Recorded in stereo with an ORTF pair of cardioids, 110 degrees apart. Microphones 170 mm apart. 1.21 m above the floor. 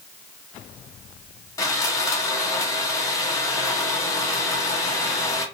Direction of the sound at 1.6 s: 20° left.